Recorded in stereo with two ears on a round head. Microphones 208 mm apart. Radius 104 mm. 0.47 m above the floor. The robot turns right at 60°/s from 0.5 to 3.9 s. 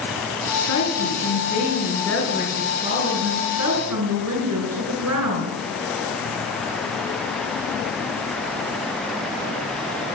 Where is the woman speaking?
85° left, 6 m; by 5.6 s 85° right, 6 m.